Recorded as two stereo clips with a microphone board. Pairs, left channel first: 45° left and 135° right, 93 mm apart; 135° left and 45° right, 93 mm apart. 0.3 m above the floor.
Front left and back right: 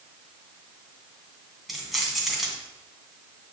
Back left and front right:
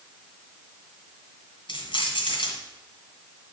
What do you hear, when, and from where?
1.7 s keys jangling: 135° left, 2 m